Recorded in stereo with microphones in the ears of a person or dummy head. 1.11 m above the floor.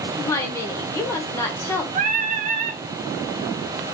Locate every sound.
0.2 s a woman speaking: 15° left (ahead or behind), 0.9 m
1.9 s singing: 45° right (ahead or behind), 0.6 m